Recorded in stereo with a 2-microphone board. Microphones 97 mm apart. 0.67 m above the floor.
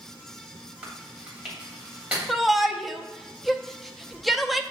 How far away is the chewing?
About 2.5 m.